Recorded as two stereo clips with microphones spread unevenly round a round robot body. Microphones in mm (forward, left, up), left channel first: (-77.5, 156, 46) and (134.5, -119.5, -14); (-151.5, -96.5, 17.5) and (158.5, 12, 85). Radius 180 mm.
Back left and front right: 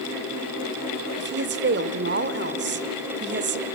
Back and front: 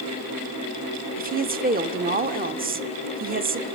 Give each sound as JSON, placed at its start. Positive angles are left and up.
{"t": 1.2, "sound": "a woman speaking", "azimuth_deg": -45, "distance_m": 1.0}